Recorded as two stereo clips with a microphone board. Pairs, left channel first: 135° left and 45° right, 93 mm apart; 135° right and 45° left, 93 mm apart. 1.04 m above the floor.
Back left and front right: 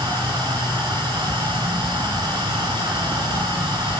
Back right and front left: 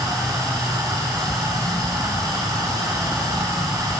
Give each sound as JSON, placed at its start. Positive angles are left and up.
{"t": 0.0, "sound": "running water", "azimuth_deg": -10, "distance_m": 9.5}